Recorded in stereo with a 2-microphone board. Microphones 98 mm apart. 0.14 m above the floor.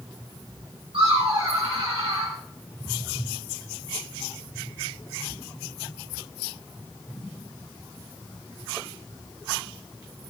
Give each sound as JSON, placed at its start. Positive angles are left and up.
{"t": 0.9, "sound": "laughter", "side_deg": -65, "distance_m": 4.5}